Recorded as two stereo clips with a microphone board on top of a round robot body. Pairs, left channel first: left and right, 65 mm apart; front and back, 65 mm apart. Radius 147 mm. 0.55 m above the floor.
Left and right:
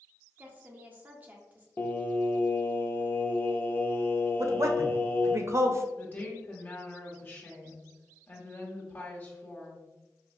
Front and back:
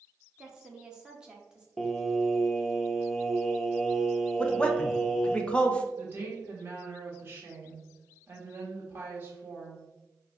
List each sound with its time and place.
0.4 s a woman speaking: 115° right, 0.9 m
1.8 s singing: 90° left, 0.8 m
4.4 s a man speaking: 70° right, 0.8 m
6.0 s a woman speaking: 140° left, 1.4 m